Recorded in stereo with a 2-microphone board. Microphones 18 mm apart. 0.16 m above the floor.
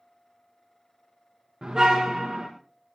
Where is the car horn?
45° right (ahead or behind), 6 m.